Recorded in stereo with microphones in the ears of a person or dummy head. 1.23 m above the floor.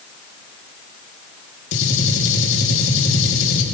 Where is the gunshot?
65° left (ahead or behind), 2.5 m.